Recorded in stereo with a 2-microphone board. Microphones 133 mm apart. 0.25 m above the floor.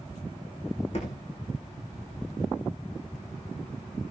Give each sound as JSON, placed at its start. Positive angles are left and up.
{"t": 0.9, "sound": "a thud", "side_deg": 55, "distance_m": 7.0}